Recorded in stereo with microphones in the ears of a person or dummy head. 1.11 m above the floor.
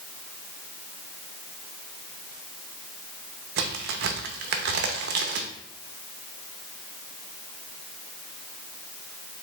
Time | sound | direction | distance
3.6 | a crack | 65° right (ahead or behind) | 0.6 m